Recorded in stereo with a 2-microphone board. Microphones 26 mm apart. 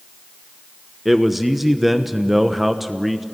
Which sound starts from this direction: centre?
A man speaking, at 1.1 s.